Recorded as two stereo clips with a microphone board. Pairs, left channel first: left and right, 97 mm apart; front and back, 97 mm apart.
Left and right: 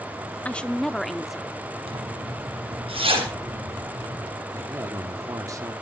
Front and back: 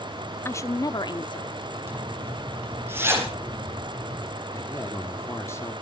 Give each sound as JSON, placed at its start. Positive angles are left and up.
{"t": 0.5, "sound": "a woman speaking", "azimuth_deg": 30, "distance_m": 0.7}
{"t": 1.9, "sound": "a zipper", "azimuth_deg": -115, "distance_m": 4.5}
{"t": 4.5, "sound": "a man speaking", "azimuth_deg": -50, "distance_m": 1.8}